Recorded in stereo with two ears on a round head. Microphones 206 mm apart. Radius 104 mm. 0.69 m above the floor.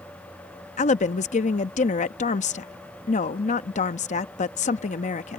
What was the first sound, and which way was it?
A woman speaking, 30° left (ahead or behind).